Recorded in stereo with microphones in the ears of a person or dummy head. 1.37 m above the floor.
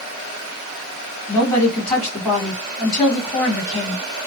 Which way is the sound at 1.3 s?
5° right (ahead or behind).